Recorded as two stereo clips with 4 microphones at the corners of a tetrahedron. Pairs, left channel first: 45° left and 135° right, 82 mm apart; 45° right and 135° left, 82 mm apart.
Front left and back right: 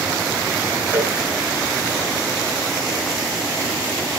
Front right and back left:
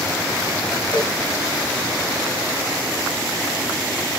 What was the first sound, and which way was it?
A cowbell, 70° right.